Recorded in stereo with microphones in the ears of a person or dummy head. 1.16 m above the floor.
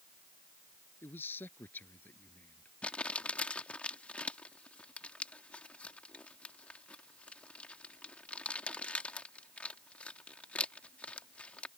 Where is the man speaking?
10° left (ahead or behind).